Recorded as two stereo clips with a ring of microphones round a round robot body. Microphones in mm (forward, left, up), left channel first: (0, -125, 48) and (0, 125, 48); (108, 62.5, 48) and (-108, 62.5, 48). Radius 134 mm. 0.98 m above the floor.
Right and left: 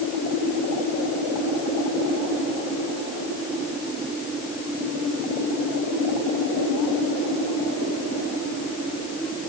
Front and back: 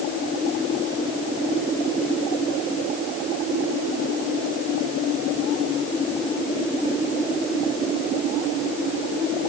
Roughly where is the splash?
I don't hear a splash.